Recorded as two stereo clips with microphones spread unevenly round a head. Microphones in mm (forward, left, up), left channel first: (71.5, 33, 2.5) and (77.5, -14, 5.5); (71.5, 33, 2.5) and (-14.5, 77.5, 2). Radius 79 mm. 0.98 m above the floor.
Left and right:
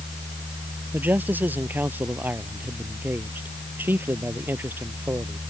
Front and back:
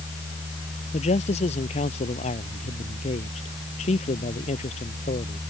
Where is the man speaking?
35° right; by 5.4 s 40° right.